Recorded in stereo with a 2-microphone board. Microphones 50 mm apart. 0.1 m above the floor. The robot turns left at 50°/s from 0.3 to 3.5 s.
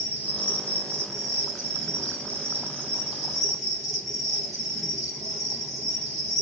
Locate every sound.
0.0 s an insect: 25° right, 0.8 m; by 6.4 s 175° left, 0.8 m